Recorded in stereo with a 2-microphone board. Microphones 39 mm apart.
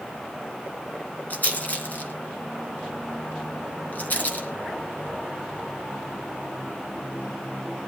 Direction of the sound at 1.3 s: 45° left (ahead or behind).